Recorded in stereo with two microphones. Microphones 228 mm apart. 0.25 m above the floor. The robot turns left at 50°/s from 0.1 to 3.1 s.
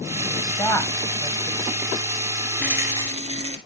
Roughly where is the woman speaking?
Centre.